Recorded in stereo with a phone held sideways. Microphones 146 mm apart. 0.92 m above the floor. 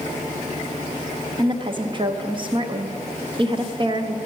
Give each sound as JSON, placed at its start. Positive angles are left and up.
{"t": 1.4, "sound": "a woman speaking", "side_deg": -35, "distance_m": 0.7}